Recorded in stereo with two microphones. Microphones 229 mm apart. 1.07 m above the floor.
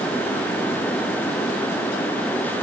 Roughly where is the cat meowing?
I don't hear a cat meowing.